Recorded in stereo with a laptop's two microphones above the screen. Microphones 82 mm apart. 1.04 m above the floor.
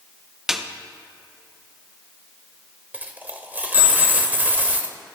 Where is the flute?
I don't hear a flute.